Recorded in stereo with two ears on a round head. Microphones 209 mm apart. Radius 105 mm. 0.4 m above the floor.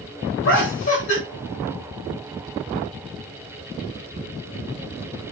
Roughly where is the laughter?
Left.